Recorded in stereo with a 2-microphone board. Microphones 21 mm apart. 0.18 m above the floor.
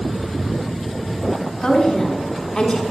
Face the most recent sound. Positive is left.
turn(degrees=25)  # may be behind; listen again after turning